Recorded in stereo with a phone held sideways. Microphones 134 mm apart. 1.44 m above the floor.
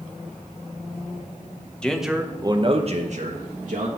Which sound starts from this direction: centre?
A man speaking, at 1.8 s.